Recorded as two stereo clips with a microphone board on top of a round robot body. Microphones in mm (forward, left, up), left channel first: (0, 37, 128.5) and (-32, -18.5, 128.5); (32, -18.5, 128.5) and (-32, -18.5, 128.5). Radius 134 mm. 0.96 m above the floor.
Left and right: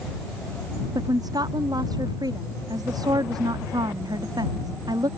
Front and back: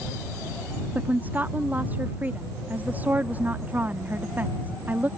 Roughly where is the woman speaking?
Behind right.